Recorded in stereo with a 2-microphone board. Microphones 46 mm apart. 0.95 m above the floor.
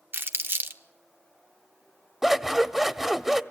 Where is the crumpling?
55° right (ahead or behind), 1.3 m.